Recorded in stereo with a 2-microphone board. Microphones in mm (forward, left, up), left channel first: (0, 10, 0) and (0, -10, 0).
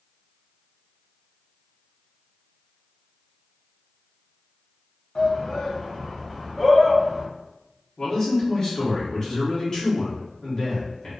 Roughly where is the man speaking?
Left.